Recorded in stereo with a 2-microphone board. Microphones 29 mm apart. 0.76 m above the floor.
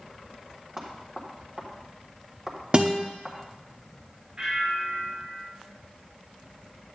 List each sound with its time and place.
0.8 s knocking: 20° right (ahead or behind), 1.6 m
2.7 s a guitar: 35° right (ahead or behind), 0.8 m
4.4 s a bell: 35° right (ahead or behind), 2.5 m